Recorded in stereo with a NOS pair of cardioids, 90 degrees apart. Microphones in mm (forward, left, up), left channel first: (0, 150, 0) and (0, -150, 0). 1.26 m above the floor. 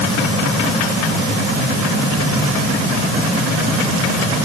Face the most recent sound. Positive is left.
No sound to turn to.